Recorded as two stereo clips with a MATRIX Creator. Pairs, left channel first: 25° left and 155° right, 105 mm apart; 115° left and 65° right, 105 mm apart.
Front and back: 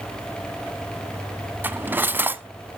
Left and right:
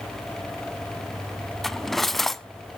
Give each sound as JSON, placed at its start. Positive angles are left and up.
{"t": 1.6, "sound": "cutlery clinking", "azimuth_deg": -165, "distance_m": 0.6}